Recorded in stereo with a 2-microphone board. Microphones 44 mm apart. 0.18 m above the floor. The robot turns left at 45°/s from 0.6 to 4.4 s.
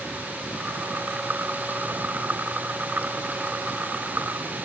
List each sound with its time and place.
Only background noise.